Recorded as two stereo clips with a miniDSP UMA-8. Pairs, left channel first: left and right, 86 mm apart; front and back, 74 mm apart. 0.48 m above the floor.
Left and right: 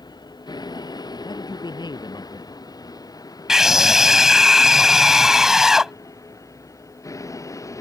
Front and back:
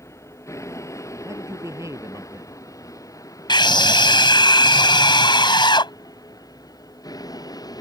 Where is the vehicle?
50° left; by 7.8 s 35° left.